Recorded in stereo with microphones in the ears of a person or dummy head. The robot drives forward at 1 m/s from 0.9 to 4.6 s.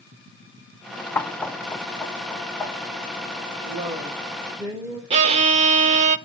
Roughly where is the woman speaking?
Right.